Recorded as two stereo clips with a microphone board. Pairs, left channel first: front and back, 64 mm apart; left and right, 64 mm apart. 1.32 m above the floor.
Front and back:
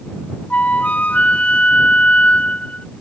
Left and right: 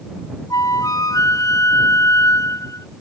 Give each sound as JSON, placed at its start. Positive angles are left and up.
{"t": 0.5, "sound": "a flute", "azimuth_deg": 70}